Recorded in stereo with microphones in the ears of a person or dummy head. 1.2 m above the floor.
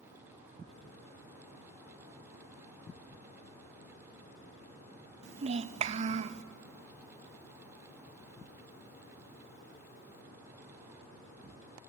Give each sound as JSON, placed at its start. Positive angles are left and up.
{"t": 5.2, "sound": "a child speaking", "side_deg": -40, "distance_m": 0.6}